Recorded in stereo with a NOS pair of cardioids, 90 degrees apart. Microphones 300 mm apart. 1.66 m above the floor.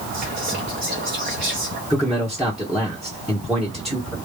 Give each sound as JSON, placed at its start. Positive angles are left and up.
{"t": 0.1, "sound": "whispering", "azimuth_deg": -30, "distance_m": 0.8}
{"t": 1.9, "sound": "a man speaking", "azimuth_deg": 0, "distance_m": 1.3}